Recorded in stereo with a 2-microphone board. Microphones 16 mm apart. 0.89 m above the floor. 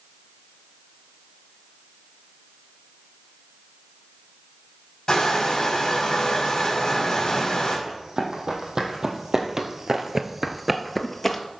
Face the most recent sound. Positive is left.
turn(degrees=20)  # may be behind; listen again after turning